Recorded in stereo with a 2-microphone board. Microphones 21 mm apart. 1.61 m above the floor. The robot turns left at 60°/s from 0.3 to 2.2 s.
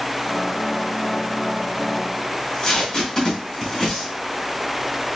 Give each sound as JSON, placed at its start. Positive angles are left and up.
{"t": 2.3, "sound": "tape being pulled", "side_deg": 25, "distance_m": 1.5}